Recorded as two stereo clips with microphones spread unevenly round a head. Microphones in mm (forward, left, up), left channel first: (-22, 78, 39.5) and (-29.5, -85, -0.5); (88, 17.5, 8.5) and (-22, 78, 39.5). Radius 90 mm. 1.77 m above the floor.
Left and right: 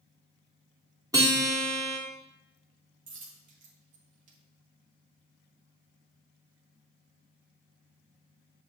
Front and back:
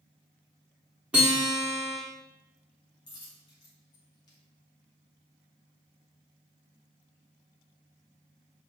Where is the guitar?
170° right, 1.5 m.